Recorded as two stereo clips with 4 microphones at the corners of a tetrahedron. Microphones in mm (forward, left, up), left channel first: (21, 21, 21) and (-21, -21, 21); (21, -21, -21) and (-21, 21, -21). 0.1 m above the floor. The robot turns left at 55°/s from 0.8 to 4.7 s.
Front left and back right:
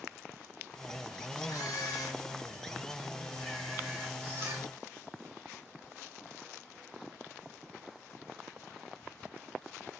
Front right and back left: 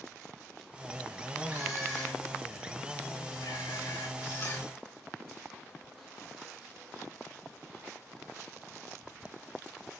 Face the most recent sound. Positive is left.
turn(degrees=-105)